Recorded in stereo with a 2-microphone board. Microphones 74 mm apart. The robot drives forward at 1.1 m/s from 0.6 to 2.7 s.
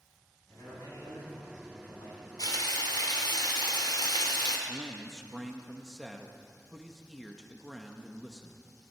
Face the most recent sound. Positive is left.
turn(degrees=0)  # may be behind; listen again after turning